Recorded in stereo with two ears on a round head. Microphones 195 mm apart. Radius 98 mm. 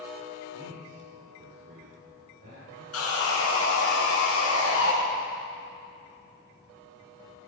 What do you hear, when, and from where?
0.5 s a man speaking: 55° right (ahead or behind), 2.5 m; by 2.8 s 40° right (ahead or behind), 4.5 m
2.9 s sawing: 75° left (ahead or behind), 3.5 m